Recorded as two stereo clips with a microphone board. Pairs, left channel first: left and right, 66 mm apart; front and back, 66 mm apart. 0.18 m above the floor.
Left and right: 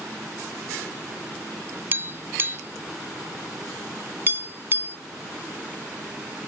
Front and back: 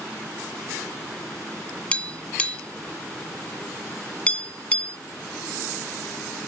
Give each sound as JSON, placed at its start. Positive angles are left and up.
{"t": 1.9, "sound": "tapping", "azimuth_deg": -60}